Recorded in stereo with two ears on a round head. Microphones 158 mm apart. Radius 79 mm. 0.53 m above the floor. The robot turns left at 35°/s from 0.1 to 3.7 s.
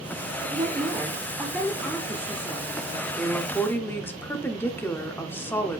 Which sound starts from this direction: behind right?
A woman speaking, at 0.5 s.